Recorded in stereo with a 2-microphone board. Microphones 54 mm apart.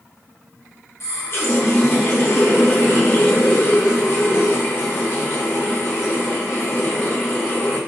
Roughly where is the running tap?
Left.